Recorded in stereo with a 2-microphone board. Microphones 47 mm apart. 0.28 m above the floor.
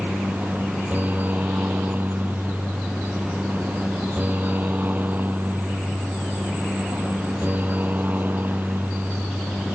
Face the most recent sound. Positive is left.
turn(degrees=-40)  # may be behind; listen again after turning